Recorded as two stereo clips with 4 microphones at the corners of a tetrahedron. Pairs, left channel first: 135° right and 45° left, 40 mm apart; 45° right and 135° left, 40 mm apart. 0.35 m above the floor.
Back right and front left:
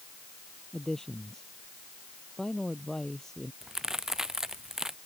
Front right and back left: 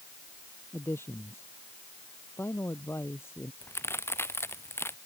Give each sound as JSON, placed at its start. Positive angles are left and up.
{"t": 0.7, "sound": "a man speaking", "azimuth_deg": -60}
{"t": 3.6, "sound": "a crack", "azimuth_deg": -30}